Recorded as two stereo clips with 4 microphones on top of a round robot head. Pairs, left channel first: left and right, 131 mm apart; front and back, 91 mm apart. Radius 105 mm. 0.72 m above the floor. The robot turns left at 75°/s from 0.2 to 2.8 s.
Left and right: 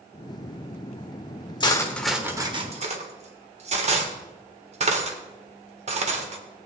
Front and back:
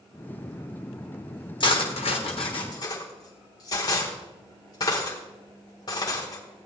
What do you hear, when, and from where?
1.6 s cutlery clinking: 35° left, 1.5 m; by 6.7 s 55° right, 1.5 m